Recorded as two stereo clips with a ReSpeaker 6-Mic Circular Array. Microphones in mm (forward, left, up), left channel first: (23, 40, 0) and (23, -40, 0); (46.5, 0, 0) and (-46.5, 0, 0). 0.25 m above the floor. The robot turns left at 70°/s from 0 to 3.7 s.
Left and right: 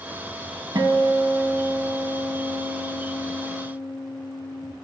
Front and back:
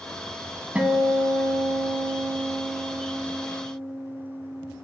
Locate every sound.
0.8 s a guitar: 110° right, 0.7 m; by 4.7 s 45° left, 0.7 m